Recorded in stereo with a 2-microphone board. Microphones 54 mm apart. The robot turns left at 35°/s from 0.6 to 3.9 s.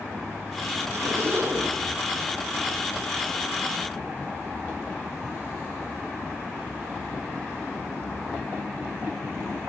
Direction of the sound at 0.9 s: 60° right (ahead or behind).